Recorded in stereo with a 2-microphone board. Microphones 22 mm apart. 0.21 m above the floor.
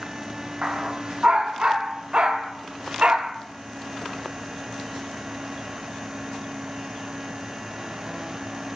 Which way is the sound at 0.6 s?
50° right (ahead or behind).